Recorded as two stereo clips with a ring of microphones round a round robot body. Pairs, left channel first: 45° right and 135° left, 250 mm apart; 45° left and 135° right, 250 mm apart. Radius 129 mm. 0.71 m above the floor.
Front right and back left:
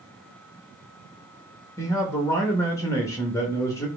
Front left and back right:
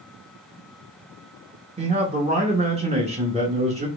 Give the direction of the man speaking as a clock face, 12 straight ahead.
4 o'clock.